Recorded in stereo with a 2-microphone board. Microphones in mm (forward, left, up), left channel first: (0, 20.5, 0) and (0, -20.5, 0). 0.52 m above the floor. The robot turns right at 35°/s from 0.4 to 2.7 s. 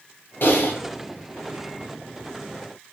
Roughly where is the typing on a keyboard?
Left.